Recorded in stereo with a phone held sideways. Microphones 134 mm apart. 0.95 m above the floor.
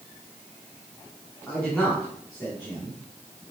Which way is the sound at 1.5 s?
15° left (ahead or behind).